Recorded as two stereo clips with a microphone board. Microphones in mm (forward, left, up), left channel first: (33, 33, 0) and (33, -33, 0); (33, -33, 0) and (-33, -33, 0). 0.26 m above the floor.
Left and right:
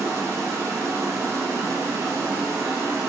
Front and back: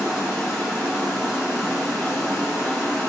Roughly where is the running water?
Right.